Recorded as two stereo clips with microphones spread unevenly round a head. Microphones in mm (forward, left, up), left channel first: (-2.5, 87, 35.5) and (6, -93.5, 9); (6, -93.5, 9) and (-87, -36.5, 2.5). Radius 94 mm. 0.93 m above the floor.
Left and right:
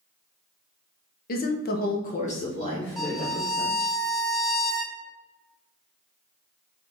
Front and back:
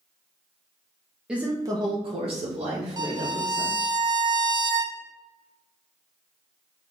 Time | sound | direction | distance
1.3 | a woman speaking | 70° left | 0.8 m
3.0 | a violin | 170° left | 0.6 m